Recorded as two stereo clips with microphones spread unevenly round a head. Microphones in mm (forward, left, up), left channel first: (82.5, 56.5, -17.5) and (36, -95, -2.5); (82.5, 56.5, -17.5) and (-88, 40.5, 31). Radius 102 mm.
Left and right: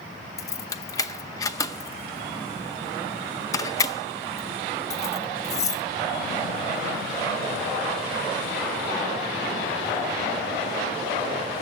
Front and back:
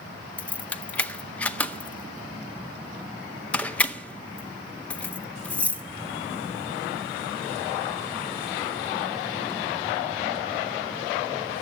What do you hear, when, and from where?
0.4 s keys jangling: 120° left, 0.7 m